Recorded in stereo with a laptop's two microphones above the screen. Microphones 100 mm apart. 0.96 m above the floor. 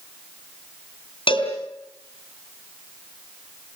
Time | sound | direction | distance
1.3 | a cowbell | 60° left (ahead or behind) | 3.5 m